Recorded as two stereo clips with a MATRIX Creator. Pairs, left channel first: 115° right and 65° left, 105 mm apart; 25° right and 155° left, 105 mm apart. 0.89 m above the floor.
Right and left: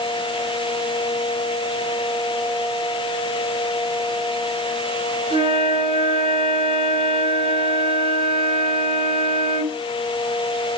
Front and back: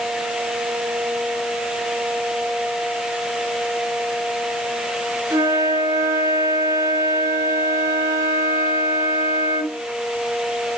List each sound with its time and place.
5.3 s a flute: 100° left, 5.5 m